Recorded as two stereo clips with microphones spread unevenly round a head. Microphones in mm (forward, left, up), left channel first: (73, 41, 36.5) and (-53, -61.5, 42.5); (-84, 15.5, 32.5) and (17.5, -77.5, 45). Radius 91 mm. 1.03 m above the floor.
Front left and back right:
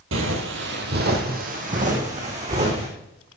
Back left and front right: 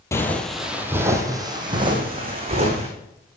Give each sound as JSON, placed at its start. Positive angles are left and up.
{"t": 0.1, "sound": "footsteps", "azimuth_deg": -150, "distance_m": 2.0}